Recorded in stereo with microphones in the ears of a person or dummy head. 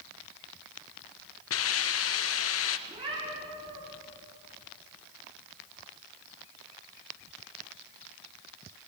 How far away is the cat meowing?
About 9 m.